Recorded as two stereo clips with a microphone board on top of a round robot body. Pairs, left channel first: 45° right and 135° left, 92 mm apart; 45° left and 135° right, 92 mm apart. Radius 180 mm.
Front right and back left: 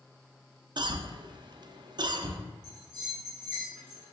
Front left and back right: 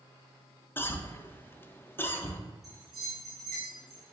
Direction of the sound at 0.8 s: 110° left.